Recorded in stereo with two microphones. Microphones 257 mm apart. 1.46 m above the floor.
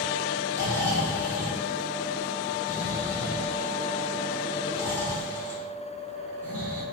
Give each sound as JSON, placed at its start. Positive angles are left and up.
{"t": 0.5, "sound": "snoring", "side_deg": 10, "distance_m": 4.0}